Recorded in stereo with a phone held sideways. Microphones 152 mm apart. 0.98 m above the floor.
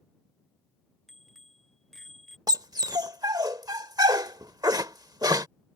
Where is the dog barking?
25° right (ahead or behind).